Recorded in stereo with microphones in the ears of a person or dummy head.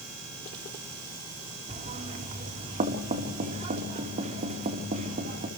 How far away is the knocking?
About 4 m.